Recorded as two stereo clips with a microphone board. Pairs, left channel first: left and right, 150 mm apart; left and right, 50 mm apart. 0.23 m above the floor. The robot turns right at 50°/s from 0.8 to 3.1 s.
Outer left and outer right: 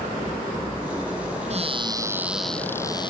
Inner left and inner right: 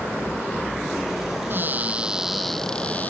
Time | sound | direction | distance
1.5 | a cupboard door | 45° right | ?